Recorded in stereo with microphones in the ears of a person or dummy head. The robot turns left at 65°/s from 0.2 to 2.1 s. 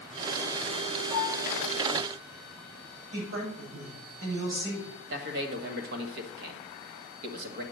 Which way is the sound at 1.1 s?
40° right (ahead or behind).